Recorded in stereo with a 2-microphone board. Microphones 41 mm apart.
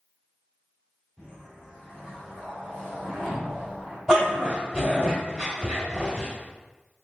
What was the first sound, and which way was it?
A whoosh, 10° left (ahead or behind).